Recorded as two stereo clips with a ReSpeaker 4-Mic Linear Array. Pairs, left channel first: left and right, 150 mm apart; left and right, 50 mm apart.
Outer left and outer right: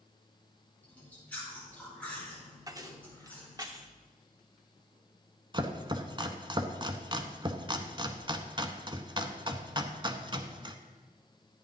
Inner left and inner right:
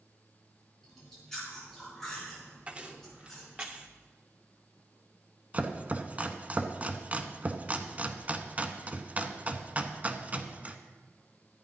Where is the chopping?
30° right (ahead or behind), 0.7 m.